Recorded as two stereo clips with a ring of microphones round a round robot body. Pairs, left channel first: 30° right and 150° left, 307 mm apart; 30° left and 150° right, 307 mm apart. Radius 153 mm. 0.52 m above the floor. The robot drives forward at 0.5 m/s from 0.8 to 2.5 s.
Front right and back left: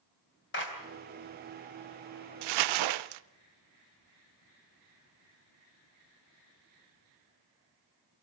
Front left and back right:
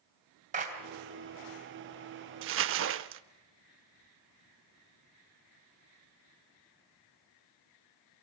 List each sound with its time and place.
0.5 s a clap: 85° right, 3.5 m
2.4 s crumpling: 155° left, 0.6 m; by 3.2 s 160° left, 0.6 m